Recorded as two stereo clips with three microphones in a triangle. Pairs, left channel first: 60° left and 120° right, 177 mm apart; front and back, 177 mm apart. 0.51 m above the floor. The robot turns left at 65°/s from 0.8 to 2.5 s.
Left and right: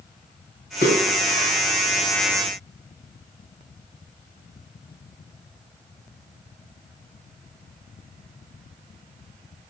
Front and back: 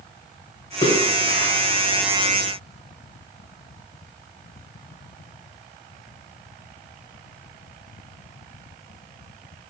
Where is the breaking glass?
I don't hear breaking glass.